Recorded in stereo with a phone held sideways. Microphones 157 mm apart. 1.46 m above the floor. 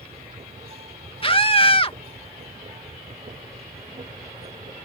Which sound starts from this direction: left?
A scream, at 1.2 s.